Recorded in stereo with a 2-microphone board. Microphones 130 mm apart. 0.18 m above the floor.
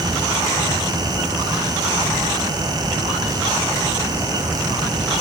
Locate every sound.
Only background noise.